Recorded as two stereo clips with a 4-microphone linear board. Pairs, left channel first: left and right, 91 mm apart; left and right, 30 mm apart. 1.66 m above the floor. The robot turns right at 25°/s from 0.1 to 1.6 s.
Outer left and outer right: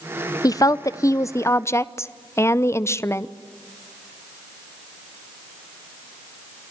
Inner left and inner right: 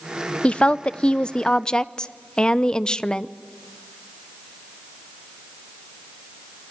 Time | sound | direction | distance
0.4 | a woman speaking | 40° left (ahead or behind) | 0.7 m